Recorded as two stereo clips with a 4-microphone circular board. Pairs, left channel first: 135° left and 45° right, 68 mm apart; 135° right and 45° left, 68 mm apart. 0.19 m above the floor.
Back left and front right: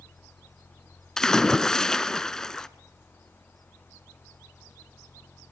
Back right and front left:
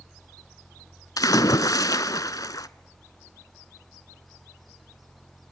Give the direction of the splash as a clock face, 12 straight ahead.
5 o'clock.